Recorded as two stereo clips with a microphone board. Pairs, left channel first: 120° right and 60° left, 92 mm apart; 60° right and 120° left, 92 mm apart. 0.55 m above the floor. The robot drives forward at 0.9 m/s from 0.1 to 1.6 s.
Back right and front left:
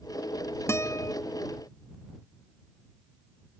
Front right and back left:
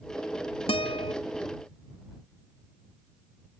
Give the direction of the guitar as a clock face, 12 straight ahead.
2 o'clock.